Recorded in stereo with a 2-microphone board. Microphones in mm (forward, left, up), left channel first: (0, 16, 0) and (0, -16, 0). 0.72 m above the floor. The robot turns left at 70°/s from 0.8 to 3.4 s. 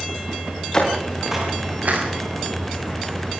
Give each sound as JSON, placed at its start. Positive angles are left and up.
{"t": 0.7, "sound": "footsteps", "side_deg": 25, "distance_m": 10.0}